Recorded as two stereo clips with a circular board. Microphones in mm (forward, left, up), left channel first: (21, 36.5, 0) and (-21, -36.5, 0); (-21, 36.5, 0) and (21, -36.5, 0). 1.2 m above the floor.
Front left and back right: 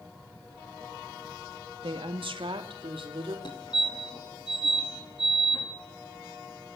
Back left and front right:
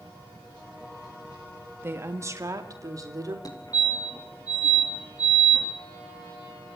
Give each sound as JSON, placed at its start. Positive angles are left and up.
{"t": 1.8, "sound": "a woman speaking", "azimuth_deg": -120, "distance_m": 1.8}
{"t": 3.5, "sound": "a fire alarm", "azimuth_deg": 80, "distance_m": 4.0}